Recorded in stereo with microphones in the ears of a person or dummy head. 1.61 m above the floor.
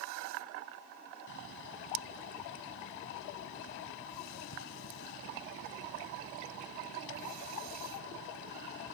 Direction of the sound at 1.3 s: 70° left (ahead or behind).